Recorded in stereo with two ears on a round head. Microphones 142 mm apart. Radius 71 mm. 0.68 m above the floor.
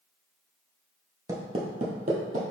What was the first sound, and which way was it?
Footsteps, 20° right (ahead or behind).